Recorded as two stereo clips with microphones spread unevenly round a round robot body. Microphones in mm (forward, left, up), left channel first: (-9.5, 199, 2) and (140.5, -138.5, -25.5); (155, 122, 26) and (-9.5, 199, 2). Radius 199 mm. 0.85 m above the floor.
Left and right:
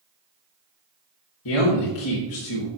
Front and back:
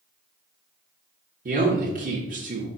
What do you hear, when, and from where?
1.4 s a man speaking: 145° left, 1.3 m